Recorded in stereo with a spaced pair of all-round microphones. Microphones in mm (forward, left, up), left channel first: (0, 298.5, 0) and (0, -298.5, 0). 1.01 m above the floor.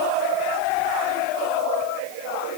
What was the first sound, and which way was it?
Only background noise.